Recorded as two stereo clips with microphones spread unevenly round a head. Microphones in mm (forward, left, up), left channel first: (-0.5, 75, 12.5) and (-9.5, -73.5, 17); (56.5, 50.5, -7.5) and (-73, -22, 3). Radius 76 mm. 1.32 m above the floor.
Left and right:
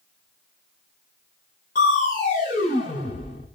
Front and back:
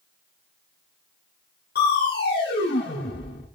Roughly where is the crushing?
Ahead left.